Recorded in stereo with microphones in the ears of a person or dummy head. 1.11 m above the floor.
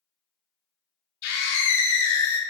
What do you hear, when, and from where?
1.2 s a scream: 60° left (ahead or behind), 2.5 m; by 2.4 s 85° left, 1.8 m